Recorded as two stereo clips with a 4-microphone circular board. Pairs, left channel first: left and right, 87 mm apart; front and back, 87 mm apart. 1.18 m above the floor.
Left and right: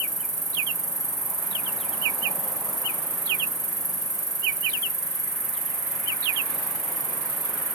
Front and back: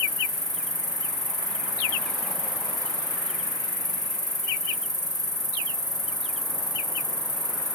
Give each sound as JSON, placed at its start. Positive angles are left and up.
{"t": 0.0, "sound": "an insect", "azimuth_deg": 40, "distance_m": 3.5}